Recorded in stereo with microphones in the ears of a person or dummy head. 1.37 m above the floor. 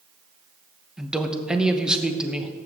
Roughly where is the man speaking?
Centre.